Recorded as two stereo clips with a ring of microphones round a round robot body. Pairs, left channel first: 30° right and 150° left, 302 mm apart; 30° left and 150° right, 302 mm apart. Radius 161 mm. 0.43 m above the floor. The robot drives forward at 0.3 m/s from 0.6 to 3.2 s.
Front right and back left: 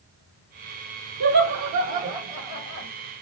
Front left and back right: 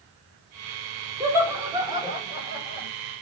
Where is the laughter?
130° left, 2 m; by 2.9 s 140° left, 2.5 m.